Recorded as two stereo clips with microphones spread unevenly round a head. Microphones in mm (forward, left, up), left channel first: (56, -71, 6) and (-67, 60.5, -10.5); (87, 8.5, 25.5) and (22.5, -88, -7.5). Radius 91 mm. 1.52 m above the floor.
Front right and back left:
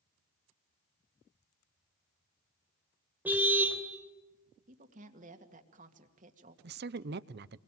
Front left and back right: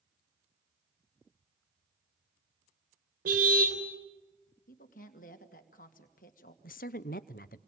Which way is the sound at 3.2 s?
145° right.